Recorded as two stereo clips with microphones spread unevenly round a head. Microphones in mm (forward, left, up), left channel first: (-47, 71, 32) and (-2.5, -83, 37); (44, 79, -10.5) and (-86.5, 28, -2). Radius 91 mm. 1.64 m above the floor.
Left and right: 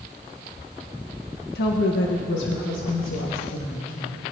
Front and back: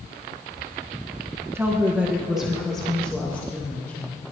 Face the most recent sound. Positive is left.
turn(degrees=95)